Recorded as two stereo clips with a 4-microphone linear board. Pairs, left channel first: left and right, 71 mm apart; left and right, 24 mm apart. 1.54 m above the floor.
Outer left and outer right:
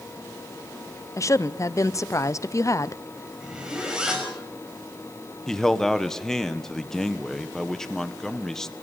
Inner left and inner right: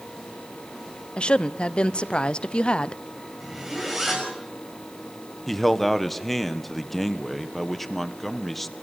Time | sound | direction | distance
1.2 | a woman speaking | 45° left (ahead or behind) | 0.7 m
3.4 | a zipper | 10° right (ahead or behind) | 6 m
5.5 | a man speaking | 5° left (ahead or behind) | 1.3 m